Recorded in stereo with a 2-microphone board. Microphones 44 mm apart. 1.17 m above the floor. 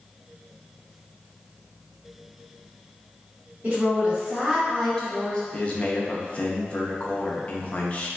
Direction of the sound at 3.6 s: 35° right (ahead or behind).